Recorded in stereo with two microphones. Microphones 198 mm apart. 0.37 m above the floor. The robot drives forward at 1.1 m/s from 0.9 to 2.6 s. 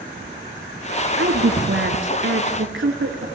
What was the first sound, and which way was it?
A woman speaking, 75° right (ahead or behind).